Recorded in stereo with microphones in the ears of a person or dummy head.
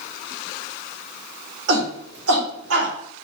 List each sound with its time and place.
1.7 s a shout: 80° right, 3 m; by 2.9 s 70° right (ahead or behind), 3 m